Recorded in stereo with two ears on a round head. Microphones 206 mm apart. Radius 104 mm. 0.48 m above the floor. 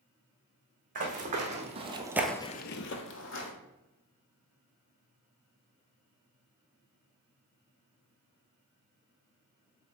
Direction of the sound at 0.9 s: 35° right (ahead or behind).